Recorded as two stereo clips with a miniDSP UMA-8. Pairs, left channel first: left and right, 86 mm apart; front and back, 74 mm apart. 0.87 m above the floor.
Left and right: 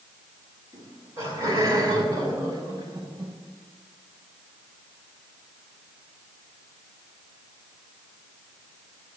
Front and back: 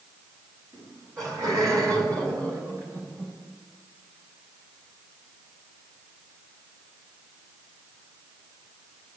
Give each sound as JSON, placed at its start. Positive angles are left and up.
{"t": 0.7, "sound": "laughter", "azimuth_deg": -145, "distance_m": 6.5}